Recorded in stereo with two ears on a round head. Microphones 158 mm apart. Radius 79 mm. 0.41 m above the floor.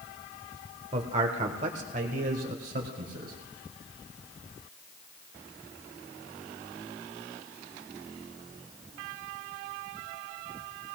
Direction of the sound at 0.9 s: 35° right (ahead or behind).